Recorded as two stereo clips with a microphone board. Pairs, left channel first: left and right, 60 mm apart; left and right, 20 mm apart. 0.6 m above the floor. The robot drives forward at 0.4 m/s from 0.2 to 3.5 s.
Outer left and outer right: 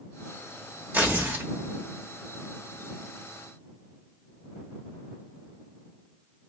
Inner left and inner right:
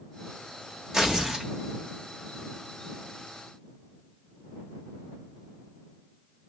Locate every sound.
0.9 s tearing paper: 30° right (ahead or behind), 1.1 m; by 1.5 s 35° right (ahead or behind), 1.0 m